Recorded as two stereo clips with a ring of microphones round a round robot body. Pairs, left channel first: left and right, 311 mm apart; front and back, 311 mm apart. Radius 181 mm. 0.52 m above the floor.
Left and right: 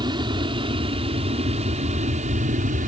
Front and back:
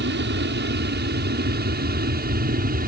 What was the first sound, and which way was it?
An aircraft, 155° right.